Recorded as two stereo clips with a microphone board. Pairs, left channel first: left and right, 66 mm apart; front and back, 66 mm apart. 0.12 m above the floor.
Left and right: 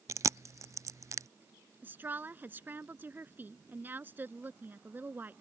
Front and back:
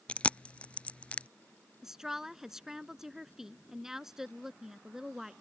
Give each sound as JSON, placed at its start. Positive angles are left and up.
{"t": 0.1, "sound": "chewing", "azimuth_deg": -65}
{"t": 1.8, "sound": "a woman speaking", "azimuth_deg": -105}